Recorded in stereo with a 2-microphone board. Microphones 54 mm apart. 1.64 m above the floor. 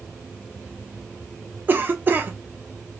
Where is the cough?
35° right (ahead or behind), 0.6 m.